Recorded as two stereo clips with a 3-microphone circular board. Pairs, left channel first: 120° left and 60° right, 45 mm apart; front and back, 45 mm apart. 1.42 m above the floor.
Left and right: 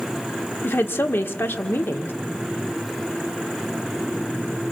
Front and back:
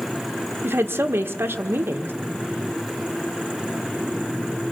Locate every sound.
0.6 s a woman speaking: 150° left, 1.3 m